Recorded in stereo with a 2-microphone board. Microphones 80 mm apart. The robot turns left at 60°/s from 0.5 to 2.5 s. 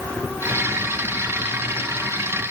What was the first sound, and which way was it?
Only background noise.